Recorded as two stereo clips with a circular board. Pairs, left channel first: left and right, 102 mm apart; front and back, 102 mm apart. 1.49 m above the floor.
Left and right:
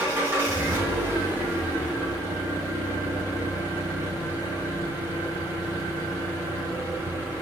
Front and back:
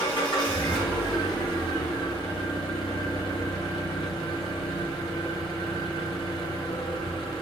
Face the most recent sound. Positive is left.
turn(degrees=-25)